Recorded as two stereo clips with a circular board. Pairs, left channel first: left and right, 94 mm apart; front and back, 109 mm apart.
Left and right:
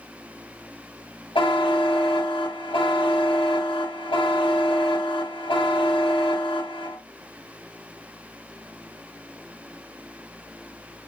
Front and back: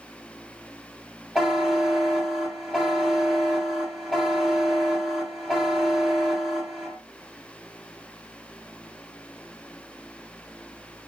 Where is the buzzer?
95° left, 1.3 m.